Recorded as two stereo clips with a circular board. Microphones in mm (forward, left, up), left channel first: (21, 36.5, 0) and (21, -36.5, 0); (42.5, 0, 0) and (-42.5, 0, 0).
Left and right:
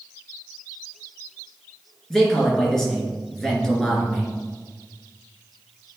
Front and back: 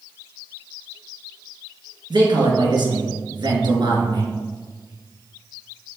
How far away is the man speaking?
About 2.5 m.